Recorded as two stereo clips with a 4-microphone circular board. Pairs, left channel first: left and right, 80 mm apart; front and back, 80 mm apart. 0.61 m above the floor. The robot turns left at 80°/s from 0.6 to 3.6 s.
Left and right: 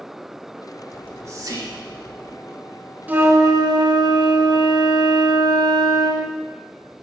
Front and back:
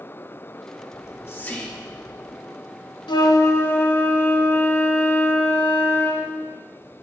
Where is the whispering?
25° right, 1.4 m; by 2.4 s 135° right, 1.4 m.